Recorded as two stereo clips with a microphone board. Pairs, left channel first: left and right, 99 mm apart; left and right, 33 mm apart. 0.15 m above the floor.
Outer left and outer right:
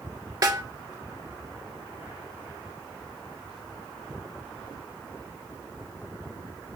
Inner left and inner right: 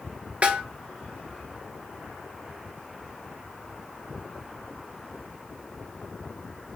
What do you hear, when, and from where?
0.4 s a snare drum: 40° right (ahead or behind), 0.6 m